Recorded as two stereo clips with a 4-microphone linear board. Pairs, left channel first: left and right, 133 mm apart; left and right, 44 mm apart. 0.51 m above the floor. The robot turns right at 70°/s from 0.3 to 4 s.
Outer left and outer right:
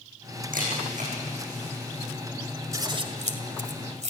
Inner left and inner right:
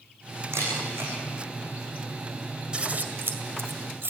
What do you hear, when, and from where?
0.5 s a camera shutter: 85° right, 9 m; by 1.1 s 55° right (ahead or behind), 9 m
2.7 s scissors: 25° right (ahead or behind), 1.9 m; by 4.1 s 60° right (ahead or behind), 1.9 m